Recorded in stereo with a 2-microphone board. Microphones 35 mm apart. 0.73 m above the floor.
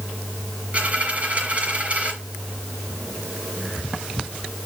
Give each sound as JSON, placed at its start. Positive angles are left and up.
{"t": 0.7, "sound": "a dropped coin", "side_deg": -40, "distance_m": 5.0}